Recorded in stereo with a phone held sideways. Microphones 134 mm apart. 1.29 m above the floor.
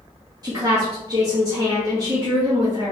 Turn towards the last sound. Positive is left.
turn(degrees=-30)  # may be behind; listen again after turning